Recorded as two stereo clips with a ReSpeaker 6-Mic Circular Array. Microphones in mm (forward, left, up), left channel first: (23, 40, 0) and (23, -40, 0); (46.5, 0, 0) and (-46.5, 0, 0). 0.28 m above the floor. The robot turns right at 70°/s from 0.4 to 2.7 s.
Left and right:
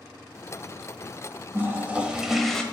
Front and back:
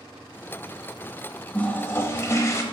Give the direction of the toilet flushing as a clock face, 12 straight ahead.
2 o'clock.